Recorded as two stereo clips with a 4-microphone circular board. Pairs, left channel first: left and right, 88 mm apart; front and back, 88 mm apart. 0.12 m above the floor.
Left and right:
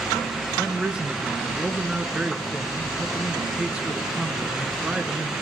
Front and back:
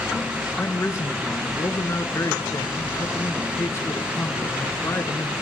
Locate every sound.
0.6 s a man speaking: 20° right, 1.6 m